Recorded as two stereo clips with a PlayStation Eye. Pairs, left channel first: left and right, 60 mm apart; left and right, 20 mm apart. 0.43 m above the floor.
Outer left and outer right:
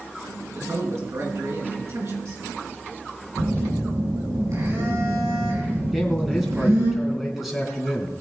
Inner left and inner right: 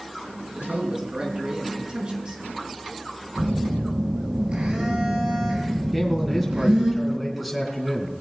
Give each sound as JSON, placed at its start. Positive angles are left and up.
{"t": 0.6, "sound": "a man speaking", "side_deg": -55, "distance_m": 6.0}
{"t": 3.4, "sound": "a phone buzzing", "side_deg": -65, "distance_m": 6.0}
{"t": 5.9, "sound": "a man speaking", "side_deg": -5, "distance_m": 4.0}